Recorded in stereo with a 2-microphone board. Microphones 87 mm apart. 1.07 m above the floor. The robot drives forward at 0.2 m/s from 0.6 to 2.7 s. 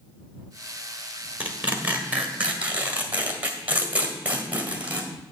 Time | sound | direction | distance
1.4 | tearing paper | 20° right (ahead or behind) | 1.5 m